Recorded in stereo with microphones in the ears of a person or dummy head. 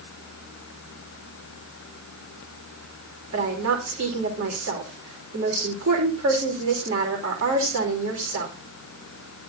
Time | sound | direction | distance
3.3 | a woman speaking | 75° right (ahead or behind) | 4.5 m